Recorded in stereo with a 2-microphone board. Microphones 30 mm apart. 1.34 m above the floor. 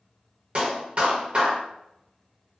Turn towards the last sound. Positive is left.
turn(degrees=-45)  # may be behind; listen again after turning